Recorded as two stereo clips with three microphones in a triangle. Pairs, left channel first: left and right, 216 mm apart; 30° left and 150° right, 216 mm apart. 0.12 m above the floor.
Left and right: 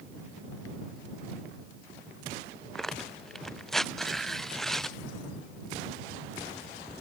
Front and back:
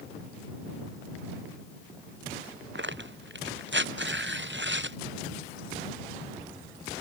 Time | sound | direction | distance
2.8 | tearing paper | straight behind | ?